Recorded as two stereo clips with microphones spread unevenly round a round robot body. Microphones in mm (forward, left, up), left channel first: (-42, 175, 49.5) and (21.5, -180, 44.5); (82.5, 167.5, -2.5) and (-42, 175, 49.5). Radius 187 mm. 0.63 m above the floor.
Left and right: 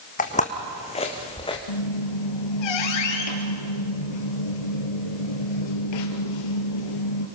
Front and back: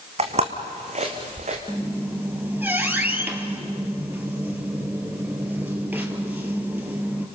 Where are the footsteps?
170° left, 2.5 m; by 1.6 s 175° left, 3.5 m.